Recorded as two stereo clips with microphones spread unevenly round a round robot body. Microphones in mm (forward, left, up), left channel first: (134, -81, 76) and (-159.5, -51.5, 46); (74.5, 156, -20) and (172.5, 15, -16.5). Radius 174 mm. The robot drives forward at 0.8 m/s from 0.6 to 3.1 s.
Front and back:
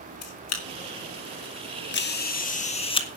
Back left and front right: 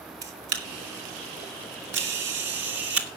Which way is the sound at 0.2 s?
40° right.